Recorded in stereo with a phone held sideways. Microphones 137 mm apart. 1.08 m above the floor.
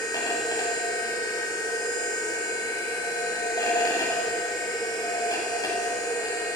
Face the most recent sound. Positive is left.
turn(degrees=30)  # may be behind; listen again after turning